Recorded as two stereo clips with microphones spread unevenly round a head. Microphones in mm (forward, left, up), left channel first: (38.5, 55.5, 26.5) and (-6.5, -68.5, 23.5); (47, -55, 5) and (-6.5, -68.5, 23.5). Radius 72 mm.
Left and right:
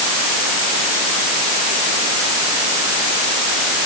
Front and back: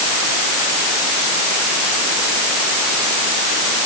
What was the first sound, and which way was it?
Only background noise.